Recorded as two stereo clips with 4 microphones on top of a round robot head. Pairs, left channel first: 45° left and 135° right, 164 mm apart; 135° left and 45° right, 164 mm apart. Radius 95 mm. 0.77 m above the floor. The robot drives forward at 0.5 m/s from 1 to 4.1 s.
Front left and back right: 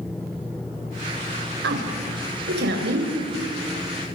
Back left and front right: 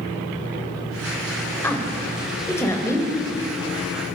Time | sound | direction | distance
1.6 | a woman speaking | 150° right | 4 m